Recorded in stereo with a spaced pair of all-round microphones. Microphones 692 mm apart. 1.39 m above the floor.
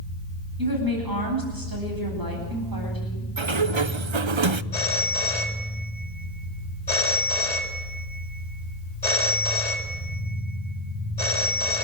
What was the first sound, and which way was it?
A woman speaking, 30° right (ahead or behind).